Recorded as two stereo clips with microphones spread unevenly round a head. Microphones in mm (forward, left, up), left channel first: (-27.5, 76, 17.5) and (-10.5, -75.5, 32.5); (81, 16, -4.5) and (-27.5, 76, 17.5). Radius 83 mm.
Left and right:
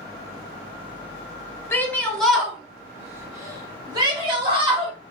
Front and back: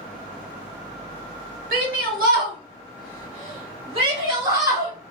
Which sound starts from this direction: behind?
A shout, at 1.7 s.